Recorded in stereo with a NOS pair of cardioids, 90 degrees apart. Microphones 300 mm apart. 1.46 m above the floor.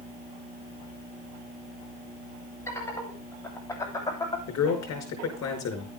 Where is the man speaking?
60° left, 5.5 m.